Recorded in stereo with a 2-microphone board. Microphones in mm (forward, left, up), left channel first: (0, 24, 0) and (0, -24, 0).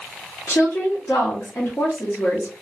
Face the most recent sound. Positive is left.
turn(degrees=70)  # may be behind; listen again after turning